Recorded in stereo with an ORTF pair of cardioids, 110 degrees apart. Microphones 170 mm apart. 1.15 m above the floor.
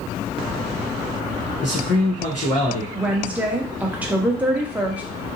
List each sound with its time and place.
1.6 s a man speaking: 45° left, 0.9 m
3.0 s a woman speaking: 10° right, 0.8 m